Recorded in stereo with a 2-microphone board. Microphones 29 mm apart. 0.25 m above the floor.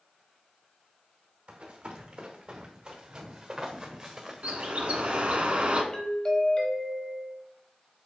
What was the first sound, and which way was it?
Running footsteps, 45° right (ahead or behind).